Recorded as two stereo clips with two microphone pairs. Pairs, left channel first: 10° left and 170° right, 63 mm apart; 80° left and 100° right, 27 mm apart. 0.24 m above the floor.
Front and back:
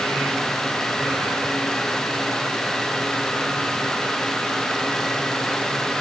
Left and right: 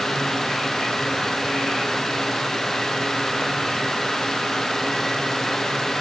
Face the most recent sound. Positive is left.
No sound to turn to.